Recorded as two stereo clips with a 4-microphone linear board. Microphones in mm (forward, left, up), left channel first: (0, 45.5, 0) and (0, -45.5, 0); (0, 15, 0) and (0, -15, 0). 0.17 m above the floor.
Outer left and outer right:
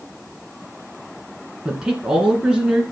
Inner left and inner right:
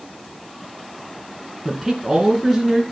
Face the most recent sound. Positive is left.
turn(degrees=-10)  # may be behind; listen again after turning